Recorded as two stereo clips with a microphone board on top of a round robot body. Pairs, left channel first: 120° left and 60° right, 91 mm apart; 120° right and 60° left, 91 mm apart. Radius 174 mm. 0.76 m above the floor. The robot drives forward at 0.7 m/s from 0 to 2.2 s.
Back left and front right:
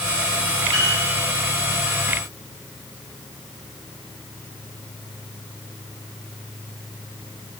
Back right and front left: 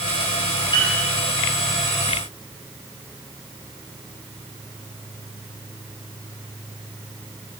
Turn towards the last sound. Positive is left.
turn(degrees=-100)